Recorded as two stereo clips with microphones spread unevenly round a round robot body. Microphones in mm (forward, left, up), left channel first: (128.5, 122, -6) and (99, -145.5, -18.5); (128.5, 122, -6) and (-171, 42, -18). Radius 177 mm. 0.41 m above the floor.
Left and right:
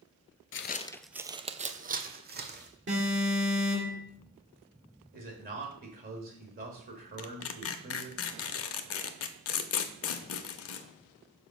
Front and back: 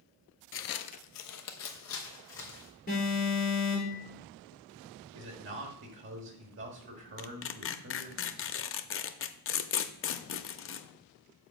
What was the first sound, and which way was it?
Footsteps, 55° left.